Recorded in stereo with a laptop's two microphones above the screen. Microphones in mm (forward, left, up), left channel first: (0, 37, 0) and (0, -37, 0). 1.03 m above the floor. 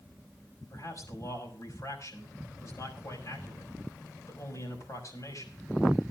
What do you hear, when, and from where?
0.7 s a man speaking: 50° left (ahead or behind), 6 m